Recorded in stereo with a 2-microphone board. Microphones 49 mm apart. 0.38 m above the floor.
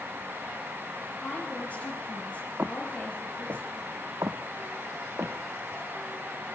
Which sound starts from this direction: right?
Footsteps, at 2.6 s.